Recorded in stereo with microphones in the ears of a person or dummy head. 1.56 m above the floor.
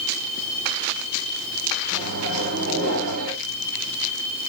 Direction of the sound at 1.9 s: 50° right (ahead or behind).